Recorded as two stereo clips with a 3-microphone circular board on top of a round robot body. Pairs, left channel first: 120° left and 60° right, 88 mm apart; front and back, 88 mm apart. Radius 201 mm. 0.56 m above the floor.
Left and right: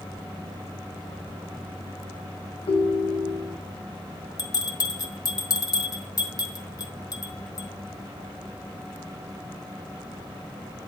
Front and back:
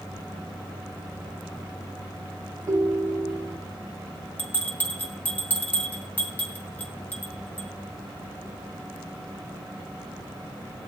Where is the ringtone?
130° left, 1.3 m.